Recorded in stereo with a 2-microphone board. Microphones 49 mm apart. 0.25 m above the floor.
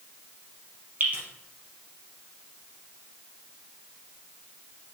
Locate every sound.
1.0 s dripping: 45° right (ahead or behind), 3 m